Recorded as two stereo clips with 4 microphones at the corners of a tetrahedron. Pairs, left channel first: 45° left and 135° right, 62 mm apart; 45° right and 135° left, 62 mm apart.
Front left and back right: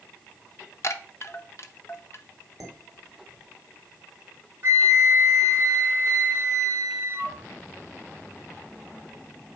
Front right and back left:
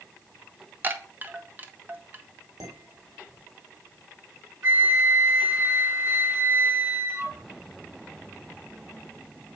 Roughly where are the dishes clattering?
Behind left.